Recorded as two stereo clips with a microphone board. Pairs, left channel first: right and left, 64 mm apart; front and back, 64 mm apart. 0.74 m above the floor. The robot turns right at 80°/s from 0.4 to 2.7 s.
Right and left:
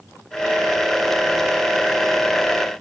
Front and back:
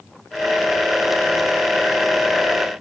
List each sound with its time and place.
Only background noise.